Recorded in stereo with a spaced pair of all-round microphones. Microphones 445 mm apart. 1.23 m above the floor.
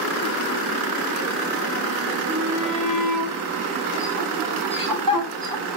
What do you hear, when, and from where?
2.3 s a shout: 40° right (ahead or behind), 3.5 m; by 5.7 s 55° right (ahead or behind), 1.4 m